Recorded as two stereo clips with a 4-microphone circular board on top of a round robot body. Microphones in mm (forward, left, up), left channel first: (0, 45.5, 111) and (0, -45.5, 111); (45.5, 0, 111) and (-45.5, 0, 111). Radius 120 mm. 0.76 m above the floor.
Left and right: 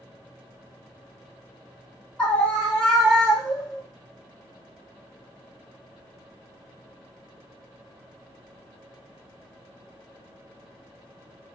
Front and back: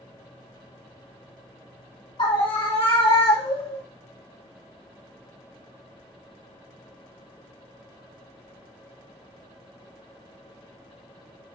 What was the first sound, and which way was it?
A scream, 15° left.